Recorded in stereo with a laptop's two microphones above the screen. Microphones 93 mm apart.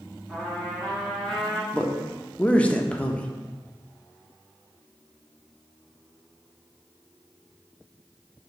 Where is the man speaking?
15° left (ahead or behind), 0.6 m.